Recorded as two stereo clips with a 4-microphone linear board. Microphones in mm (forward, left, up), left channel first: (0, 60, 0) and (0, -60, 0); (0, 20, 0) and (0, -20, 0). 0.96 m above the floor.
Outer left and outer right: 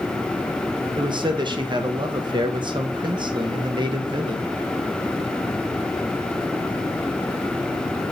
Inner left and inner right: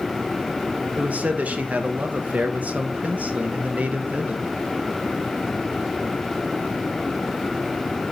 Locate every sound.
1.0 s a man speaking: 40° right (ahead or behind), 1.0 m